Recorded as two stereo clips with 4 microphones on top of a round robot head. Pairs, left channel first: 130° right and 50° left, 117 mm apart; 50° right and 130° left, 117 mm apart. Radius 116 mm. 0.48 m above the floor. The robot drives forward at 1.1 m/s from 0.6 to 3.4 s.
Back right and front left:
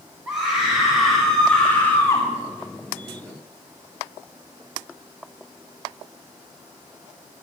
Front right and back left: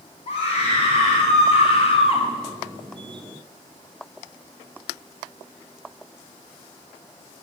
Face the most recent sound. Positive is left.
turn(degrees=-115)